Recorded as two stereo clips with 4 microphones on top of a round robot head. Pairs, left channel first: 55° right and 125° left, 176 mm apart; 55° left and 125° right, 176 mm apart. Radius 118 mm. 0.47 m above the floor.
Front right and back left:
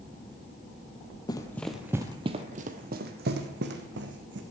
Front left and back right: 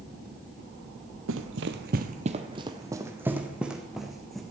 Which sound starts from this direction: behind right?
Running footsteps, at 1.3 s.